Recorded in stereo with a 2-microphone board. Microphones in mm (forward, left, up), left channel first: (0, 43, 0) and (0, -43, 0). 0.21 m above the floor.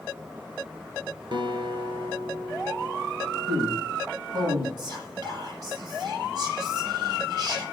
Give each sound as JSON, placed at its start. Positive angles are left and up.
{"t": 1.3, "sound": "a guitar", "side_deg": -60, "distance_m": 1.7}
{"t": 3.5, "sound": "a man speaking", "side_deg": -25, "distance_m": 5.5}
{"t": 4.8, "sound": "whispering", "side_deg": -45, "distance_m": 7.0}